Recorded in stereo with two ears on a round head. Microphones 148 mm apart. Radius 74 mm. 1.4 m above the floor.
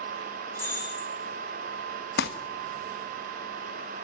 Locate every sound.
0.6 s breaking glass: 15° left (ahead or behind), 10 m
2.2 s crumpling: 65° left (ahead or behind), 1.2 m